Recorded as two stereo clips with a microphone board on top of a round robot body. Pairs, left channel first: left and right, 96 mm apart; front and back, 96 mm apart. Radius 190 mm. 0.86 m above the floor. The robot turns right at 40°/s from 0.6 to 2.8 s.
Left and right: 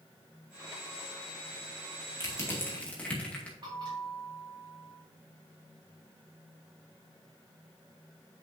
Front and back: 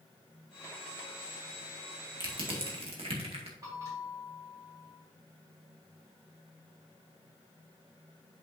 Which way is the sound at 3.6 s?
130° right.